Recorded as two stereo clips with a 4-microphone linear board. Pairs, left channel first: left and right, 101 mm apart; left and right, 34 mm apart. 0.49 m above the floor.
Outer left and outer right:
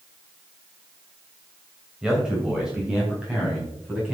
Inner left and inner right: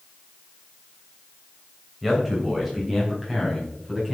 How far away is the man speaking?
About 3 m.